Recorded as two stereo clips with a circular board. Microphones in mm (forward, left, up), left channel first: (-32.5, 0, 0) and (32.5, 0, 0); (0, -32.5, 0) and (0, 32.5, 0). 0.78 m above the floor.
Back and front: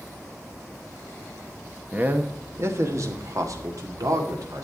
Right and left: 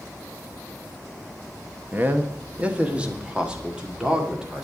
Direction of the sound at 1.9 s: 50° left.